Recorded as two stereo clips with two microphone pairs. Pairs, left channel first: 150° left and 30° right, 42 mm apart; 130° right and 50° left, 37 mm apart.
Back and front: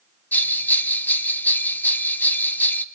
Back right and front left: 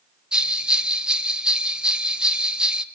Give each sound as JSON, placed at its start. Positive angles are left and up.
{"t": 0.3, "sound": "a bell", "azimuth_deg": 115, "distance_m": 0.7}